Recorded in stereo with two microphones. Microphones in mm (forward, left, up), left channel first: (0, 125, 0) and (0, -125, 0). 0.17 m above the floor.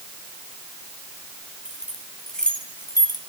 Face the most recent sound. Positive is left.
turn(degrees=20)  # may be behind; listen again after turning